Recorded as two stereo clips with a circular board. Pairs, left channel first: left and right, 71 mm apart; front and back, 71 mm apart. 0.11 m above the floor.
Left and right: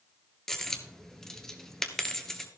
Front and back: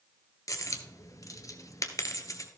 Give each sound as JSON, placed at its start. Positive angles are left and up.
{"t": 0.5, "sound": "a dropped coin", "azimuth_deg": 10, "distance_m": 1.1}